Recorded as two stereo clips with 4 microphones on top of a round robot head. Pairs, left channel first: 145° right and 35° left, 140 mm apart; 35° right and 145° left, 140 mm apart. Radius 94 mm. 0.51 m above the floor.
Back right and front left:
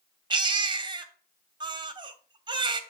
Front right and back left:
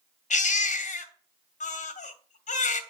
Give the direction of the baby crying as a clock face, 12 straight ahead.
1 o'clock.